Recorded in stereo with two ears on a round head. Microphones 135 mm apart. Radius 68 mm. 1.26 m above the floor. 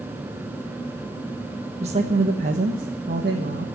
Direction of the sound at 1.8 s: 45° right (ahead or behind).